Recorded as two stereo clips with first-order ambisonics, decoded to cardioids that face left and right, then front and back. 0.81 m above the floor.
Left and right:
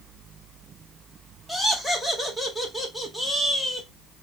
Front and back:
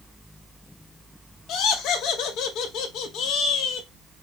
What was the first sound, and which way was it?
Laughter, 5° left.